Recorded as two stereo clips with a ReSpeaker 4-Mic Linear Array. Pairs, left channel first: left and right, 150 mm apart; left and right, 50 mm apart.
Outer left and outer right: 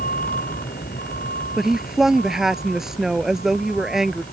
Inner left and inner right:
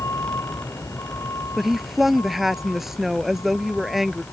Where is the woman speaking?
5° right (ahead or behind).